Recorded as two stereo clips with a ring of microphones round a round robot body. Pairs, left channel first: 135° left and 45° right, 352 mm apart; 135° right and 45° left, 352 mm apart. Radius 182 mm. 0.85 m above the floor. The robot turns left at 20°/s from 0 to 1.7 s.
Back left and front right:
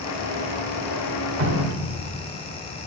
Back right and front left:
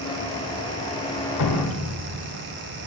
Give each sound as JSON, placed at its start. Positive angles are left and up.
{"t": 1.4, "sound": "dripping", "azimuth_deg": -100, "distance_m": 1.3}